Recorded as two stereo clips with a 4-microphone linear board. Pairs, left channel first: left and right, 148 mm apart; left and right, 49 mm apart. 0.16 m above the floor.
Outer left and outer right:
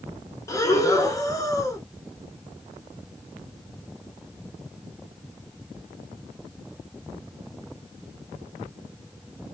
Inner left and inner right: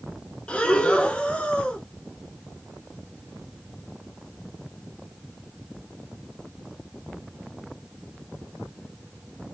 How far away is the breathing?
About 0.7 m.